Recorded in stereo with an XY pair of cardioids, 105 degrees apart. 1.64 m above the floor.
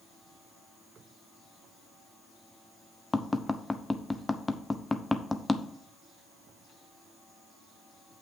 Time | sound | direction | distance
3.1 | tapping | 15° left | 0.8 m